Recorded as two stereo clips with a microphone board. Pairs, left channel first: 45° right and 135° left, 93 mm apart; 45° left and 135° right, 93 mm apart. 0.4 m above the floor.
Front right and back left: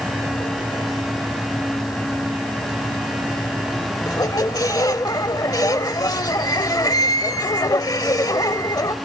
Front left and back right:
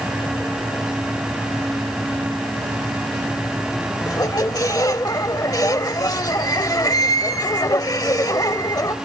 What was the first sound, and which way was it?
A squeak, straight ahead.